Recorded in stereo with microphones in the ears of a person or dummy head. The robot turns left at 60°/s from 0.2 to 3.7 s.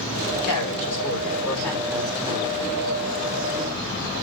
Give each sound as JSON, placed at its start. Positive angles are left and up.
{"t": 0.3, "sound": "a woman speaking", "azimuth_deg": 90, "distance_m": 4.5}